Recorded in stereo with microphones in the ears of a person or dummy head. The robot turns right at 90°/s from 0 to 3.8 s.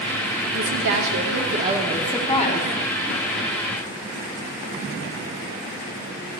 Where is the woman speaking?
135° right, 1.6 m; by 2.8 s 70° left, 1.6 m.